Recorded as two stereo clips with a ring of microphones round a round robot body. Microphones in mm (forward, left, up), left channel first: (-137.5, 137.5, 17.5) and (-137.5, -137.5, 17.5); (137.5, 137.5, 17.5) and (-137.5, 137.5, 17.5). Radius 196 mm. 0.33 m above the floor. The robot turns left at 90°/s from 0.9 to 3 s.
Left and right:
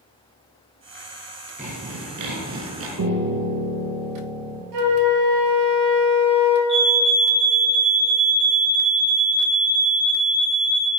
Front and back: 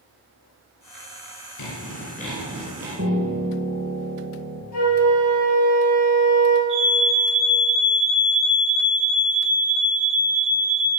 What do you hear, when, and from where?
1.6 s sawing: 15° right, 2.5 m; by 2.9 s 130° right, 2.5 m
3.0 s a piano: 120° right, 1.2 m; by 4.6 s 125° right, 1.2 m
4.7 s a flute: 50° right, 1.7 m
6.7 s a fire alarm: 65° right, 3 m